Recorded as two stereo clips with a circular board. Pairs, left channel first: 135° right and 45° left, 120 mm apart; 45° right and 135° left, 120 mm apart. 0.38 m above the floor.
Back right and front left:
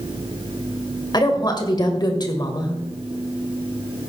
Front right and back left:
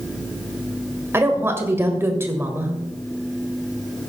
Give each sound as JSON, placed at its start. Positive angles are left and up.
{"t": 1.1, "sound": "a woman speaking", "azimuth_deg": -165, "distance_m": 1.8}